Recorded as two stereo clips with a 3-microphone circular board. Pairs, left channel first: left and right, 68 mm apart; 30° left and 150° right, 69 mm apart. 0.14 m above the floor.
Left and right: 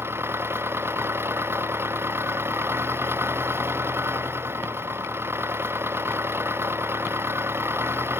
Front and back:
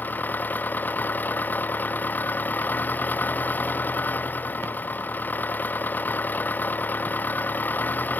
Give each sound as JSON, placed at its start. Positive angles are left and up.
{"t": 0.0, "sound": "an engine running", "azimuth_deg": -35}